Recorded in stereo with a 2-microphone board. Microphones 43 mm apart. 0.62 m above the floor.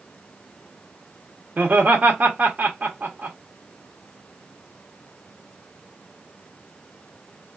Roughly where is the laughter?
Right.